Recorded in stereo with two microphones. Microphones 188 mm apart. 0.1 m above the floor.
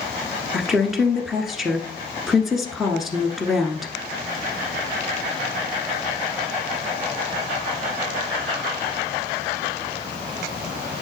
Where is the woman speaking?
Centre (ahead or behind), 1.2 m.